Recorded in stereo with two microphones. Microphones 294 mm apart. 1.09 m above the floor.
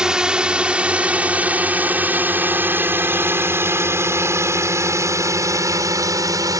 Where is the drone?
Centre (ahead or behind); by 6.6 s 10° right (ahead or behind).